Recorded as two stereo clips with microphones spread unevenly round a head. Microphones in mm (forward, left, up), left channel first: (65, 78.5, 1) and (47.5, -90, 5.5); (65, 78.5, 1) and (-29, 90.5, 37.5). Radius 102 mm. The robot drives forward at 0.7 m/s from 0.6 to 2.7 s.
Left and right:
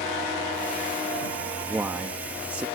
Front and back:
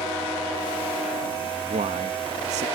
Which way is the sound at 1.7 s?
Straight behind.